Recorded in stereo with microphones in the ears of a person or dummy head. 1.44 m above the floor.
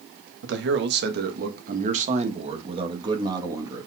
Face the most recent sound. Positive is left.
turn(degrees=-20)  # may be behind; listen again after turning